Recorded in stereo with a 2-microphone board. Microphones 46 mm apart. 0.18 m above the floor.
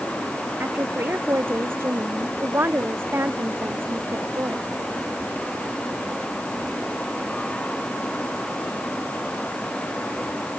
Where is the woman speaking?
50° right (ahead or behind).